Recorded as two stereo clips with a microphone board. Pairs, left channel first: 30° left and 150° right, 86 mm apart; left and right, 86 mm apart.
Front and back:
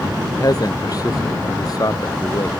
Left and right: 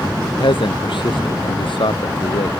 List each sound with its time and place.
0.2 s a man speaking: 75° left